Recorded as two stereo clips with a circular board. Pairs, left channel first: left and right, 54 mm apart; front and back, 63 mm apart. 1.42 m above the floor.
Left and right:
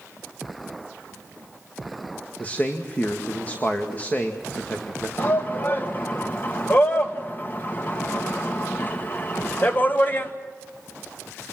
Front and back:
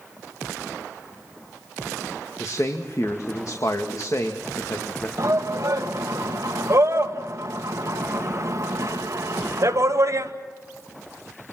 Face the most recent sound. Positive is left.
turn(degrees=145)